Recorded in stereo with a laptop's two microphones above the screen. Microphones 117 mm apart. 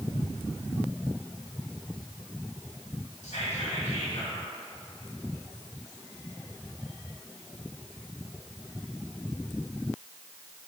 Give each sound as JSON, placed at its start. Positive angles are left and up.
{"t": 3.2, "sound": "whispering", "side_deg": 80, "distance_m": 1.7}